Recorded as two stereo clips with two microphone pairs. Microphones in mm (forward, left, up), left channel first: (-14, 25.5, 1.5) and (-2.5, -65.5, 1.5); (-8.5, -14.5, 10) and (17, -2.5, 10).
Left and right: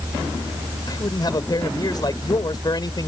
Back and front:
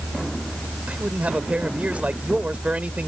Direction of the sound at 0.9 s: 55° left.